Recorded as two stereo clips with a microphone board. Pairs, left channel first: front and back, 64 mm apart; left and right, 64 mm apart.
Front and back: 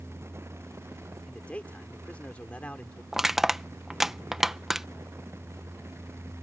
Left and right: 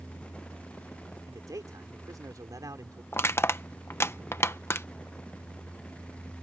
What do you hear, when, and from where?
1.3 s a man speaking: 70° right
3.1 s crushing: 100° left